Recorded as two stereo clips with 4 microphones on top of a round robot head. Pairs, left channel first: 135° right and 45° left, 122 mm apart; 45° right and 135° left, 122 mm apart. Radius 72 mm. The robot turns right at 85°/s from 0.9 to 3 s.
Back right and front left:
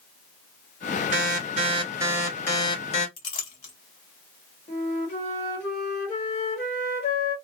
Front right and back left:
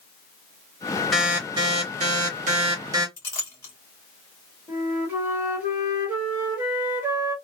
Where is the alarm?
40° left, 1.5 m; by 3.1 s 160° right, 1.5 m.